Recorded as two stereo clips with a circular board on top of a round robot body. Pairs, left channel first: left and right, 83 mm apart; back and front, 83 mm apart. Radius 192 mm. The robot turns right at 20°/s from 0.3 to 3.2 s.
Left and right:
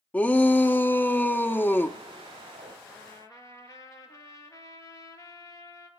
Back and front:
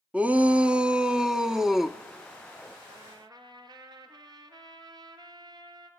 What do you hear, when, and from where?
0.1 s a shout: 50° left, 1.1 m; by 2.0 s 85° left, 1.1 m
2.9 s a trumpet: 30° left, 2 m; by 5.9 s 35° left, 2 m